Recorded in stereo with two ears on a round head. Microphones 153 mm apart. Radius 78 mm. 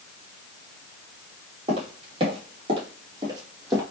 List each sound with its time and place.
1.7 s footsteps: 35° right (ahead or behind), 2.5 m; by 3.8 s 15° right (ahead or behind), 1.6 m